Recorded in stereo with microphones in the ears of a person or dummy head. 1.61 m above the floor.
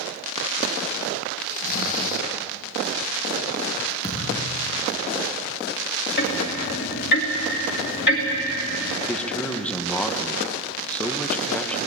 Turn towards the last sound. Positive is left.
turn(degrees=5)  # may be behind; listen again after turning